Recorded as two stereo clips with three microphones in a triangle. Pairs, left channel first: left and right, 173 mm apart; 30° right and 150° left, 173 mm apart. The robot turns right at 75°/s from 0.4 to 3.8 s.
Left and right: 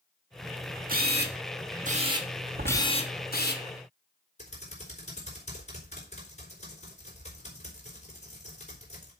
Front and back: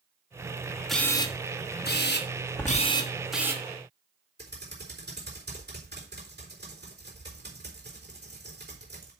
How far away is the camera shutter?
About 1.2 m.